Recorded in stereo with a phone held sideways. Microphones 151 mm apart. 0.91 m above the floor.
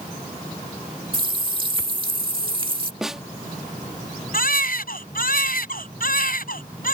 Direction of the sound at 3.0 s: 5° right (ahead or behind).